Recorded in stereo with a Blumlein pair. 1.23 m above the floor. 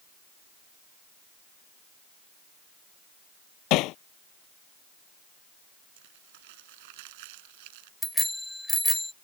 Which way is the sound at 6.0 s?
50° right.